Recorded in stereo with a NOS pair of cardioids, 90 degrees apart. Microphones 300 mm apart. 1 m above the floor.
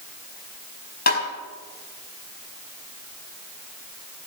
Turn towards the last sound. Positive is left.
turn(degrees=30)